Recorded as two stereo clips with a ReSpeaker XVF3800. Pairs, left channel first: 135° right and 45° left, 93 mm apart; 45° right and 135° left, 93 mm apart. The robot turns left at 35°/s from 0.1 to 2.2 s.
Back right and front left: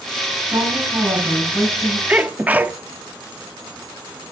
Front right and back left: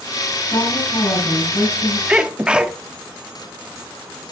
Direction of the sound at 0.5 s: Straight ahead.